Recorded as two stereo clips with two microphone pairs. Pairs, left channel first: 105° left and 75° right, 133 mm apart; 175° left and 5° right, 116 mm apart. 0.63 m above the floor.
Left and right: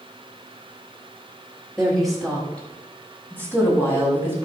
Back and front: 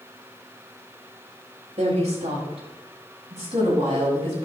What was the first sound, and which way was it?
A woman speaking, 15° left.